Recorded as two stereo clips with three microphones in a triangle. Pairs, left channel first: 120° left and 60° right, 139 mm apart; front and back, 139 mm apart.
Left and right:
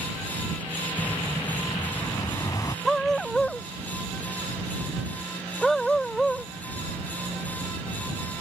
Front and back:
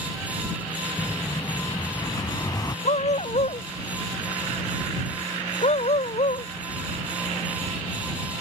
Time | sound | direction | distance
1.0 | an explosion | 60° left | ?
2.9 | a dog barking | 35° left | ?